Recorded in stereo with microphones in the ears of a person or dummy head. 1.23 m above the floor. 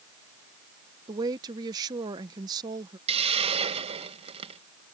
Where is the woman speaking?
30° right (ahead or behind).